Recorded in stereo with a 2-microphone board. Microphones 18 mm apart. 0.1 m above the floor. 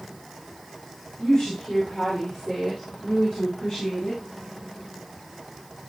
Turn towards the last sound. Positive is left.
turn(degrees=60)  # may be behind; listen again after turning